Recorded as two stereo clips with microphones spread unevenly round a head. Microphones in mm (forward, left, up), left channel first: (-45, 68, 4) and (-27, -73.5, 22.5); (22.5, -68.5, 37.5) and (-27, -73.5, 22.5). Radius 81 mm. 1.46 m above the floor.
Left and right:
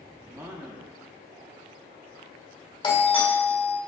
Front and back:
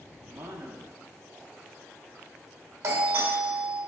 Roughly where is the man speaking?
Behind right.